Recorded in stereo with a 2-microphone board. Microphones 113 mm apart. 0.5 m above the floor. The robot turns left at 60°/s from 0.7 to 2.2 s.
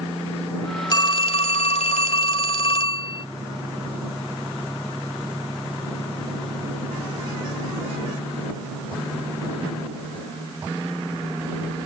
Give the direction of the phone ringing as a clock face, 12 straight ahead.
7 o'clock.